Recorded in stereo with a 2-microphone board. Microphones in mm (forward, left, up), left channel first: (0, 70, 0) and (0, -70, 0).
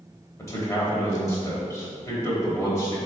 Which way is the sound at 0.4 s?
20° left (ahead or behind).